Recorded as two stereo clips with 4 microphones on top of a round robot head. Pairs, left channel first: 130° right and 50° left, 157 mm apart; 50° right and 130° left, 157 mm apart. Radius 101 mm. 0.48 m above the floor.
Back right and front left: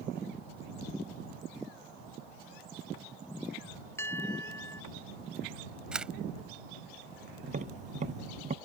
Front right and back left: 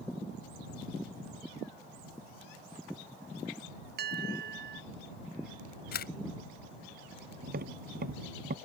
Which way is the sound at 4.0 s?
155° left.